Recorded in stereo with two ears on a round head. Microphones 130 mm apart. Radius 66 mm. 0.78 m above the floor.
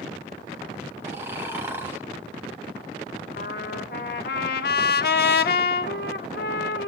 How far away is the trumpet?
About 0.9 m.